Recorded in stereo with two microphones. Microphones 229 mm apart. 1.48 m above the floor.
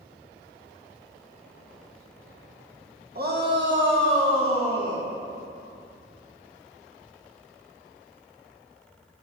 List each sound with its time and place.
3.1 s a shout: 45° right (ahead or behind), 1.5 m; by 5.0 s 85° right, 2 m